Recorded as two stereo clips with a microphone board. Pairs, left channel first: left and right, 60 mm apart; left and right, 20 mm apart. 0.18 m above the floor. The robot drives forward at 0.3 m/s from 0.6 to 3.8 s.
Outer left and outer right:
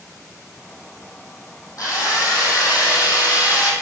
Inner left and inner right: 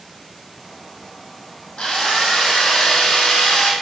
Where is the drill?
70° left (ahead or behind), 4 m; by 3.7 s 75° left (ahead or behind), 3.5 m.